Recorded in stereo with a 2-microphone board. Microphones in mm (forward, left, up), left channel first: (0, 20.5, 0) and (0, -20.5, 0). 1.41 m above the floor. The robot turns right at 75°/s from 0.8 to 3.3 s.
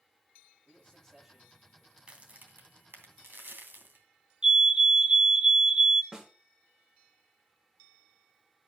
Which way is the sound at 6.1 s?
20° right (ahead or behind).